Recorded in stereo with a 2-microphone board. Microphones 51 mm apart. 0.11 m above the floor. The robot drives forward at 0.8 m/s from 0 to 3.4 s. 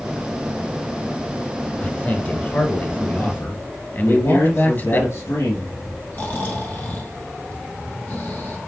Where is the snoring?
35° left (ahead or behind), 2.5 m.